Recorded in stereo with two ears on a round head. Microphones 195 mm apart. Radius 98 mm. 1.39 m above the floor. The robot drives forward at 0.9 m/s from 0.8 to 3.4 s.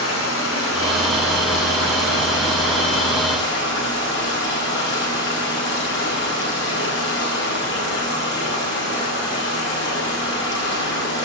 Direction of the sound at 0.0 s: 80° left.